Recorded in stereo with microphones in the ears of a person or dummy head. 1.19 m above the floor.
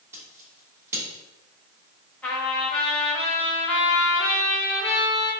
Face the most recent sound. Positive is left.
turn(degrees=10)  # may be behind; listen again after turning